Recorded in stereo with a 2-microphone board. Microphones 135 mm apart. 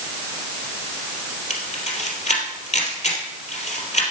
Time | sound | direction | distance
1.5 | a camera shutter | 60° left (ahead or behind) | 3 m